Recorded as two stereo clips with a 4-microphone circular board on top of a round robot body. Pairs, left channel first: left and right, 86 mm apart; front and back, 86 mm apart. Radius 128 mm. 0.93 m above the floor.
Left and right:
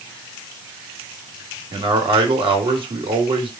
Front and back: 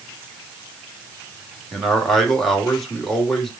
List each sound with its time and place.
1.7 s a man speaking: 85° right, 2 m